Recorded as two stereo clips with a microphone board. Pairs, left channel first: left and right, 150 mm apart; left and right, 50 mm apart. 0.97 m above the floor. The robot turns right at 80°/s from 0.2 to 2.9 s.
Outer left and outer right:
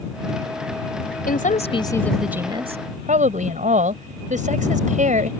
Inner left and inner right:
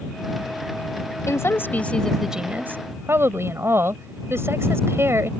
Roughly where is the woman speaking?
Left.